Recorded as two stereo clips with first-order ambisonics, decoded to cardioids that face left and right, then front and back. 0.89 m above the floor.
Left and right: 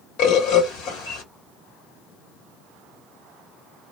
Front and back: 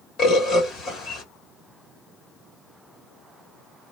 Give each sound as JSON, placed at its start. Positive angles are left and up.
{"t": 0.2, "sound": "a bird", "azimuth_deg": 60, "distance_m": 1.7}